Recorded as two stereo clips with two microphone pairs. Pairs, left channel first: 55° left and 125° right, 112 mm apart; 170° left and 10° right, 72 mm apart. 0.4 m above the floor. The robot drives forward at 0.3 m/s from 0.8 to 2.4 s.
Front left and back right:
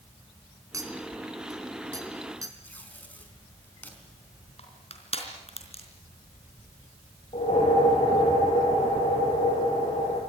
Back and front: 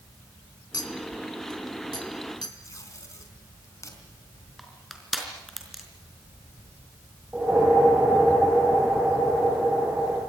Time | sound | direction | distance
0.7 | a clink | 175° left | 3 m
2.6 | tape being pulled | 130° left | 4.5 m
4.6 | crushing | 80° left | 4 m
7.3 | a whoosh | 65° left | 8 m